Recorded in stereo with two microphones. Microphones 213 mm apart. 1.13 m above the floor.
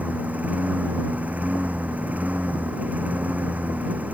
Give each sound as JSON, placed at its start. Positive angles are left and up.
{"t": 0.0, "sound": "a lawn mower", "side_deg": -5}